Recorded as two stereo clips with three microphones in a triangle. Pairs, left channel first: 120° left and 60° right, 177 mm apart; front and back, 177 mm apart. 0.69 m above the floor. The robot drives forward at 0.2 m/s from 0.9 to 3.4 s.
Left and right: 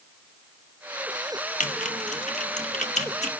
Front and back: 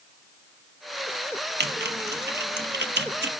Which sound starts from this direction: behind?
Typing on a keyboard, at 1.6 s.